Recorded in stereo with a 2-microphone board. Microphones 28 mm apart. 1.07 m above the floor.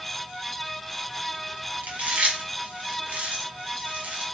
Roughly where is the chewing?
Right.